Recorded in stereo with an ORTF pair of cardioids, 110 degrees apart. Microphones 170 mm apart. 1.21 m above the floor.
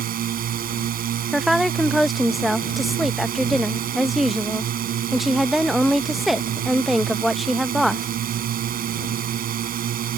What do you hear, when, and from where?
0.0 s a drone: 60° right
1.3 s a woman speaking: straight ahead